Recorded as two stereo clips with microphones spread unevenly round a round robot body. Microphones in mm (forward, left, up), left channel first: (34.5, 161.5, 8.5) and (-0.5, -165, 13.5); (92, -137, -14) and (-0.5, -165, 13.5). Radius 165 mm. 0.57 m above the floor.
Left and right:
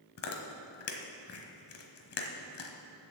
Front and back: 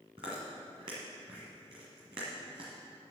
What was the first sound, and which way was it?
Chewing, 135° left.